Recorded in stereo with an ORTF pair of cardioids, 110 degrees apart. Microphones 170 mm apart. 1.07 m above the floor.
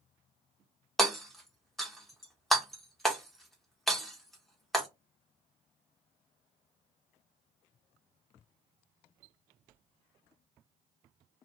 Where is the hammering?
Straight ahead, 0.7 m.